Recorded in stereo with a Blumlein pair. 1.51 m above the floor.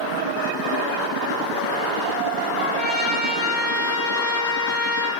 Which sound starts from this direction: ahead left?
A trumpet, at 2.6 s.